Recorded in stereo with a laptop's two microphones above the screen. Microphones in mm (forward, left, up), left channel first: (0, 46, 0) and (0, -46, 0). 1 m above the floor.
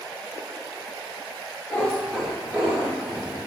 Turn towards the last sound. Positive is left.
turn(degrees=-30)  # may be behind; listen again after turning